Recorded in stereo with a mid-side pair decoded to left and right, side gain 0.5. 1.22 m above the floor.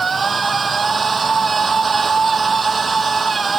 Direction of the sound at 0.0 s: 30° right.